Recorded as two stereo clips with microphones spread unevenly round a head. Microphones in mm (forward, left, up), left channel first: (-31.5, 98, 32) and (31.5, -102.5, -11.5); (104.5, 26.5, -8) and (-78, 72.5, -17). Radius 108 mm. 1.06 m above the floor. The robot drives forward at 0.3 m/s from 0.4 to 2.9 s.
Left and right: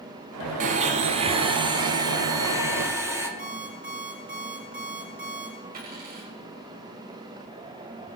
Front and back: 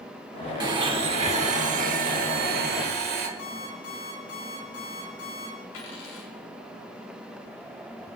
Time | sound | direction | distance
0.6 | a blender | 130° right | 0.8 m
3.4 | an alarm clock | 20° right | 7.5 m
5.7 | a dropped coin | 20° right | 4.5 m